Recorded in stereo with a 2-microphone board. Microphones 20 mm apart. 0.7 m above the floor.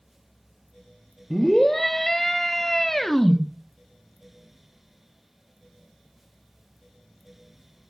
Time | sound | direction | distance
1.3 | a scream | 10° left (ahead or behind) | 1.3 m